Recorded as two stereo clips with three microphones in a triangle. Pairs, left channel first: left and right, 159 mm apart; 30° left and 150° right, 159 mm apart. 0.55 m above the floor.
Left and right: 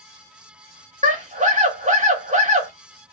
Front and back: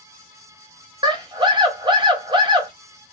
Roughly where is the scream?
Right.